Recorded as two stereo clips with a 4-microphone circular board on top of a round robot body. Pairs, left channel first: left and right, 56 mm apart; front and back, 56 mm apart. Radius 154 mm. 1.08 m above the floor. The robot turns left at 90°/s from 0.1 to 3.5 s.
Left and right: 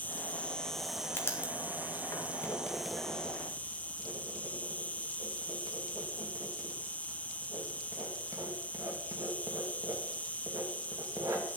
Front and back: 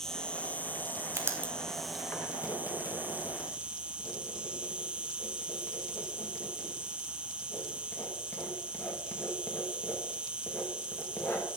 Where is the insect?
70° left, 0.9 m; by 11.6 s 125° left, 0.9 m.